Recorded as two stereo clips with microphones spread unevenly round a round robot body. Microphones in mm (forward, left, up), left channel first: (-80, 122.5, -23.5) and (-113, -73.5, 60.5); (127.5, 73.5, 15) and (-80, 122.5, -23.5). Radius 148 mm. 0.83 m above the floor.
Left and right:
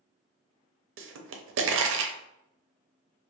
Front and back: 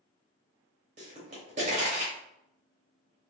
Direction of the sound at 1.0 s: 125° right.